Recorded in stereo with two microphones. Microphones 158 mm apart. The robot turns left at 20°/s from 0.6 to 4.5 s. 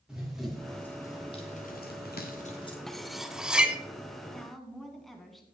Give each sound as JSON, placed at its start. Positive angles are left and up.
{"t": 0.1, "sound": "running footsteps", "side_deg": -5, "distance_m": 3.0}
{"t": 2.9, "sound": "cutlery clinking", "side_deg": 0, "distance_m": 0.7}
{"t": 4.3, "sound": "a woman speaking", "side_deg": 5, "distance_m": 1.7}